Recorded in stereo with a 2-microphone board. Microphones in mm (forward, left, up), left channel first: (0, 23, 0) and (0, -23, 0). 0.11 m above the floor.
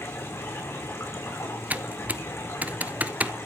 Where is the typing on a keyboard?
40° right (ahead or behind), 0.6 m.